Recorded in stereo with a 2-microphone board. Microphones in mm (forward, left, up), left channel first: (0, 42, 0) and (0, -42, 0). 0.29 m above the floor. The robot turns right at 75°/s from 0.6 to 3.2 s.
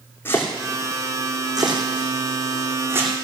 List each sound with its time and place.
0.2 s chopping: 25° left (ahead or behind), 2.5 m; by 3.1 s 15° right (ahead or behind), 2.5 m